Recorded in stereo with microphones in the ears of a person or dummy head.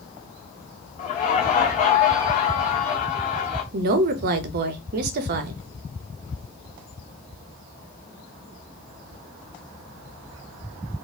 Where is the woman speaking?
55° right (ahead or behind), 0.7 m.